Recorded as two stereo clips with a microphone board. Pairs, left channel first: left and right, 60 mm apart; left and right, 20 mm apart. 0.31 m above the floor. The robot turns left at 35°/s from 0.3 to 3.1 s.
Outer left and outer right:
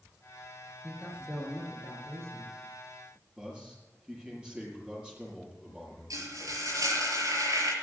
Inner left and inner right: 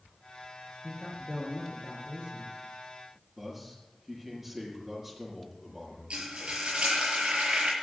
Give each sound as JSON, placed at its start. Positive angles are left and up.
{"t": 0.8, "sound": "a man speaking", "azimuth_deg": -5, "distance_m": 5.0}
{"t": 3.4, "sound": "a man speaking", "side_deg": -15, "distance_m": 8.0}
{"t": 6.1, "sound": "frying", "side_deg": -80, "distance_m": 7.0}